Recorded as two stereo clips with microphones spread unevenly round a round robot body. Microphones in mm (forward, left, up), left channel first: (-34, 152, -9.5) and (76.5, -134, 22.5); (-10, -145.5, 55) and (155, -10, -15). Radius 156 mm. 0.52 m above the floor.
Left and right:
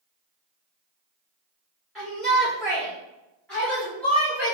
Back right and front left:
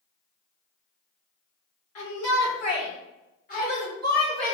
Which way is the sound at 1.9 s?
165° right.